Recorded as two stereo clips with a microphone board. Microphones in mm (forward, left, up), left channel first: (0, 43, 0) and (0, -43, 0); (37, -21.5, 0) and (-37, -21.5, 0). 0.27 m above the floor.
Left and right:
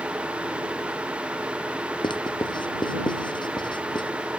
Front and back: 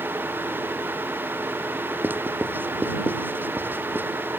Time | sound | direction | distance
2.0 | writing | 115° left | ?